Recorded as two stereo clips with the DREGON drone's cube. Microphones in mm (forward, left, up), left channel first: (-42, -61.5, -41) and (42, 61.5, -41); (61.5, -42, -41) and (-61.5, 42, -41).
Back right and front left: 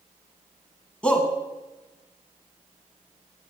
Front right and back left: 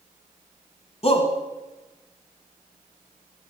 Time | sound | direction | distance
1.0 | a shout | 45° right | 1.2 m